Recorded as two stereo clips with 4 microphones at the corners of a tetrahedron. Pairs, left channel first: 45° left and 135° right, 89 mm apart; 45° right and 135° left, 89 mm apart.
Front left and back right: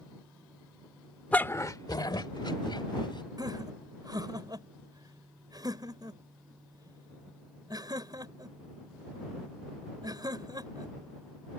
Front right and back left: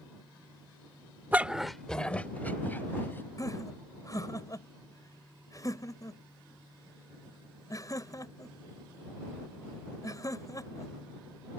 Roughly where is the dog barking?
Left.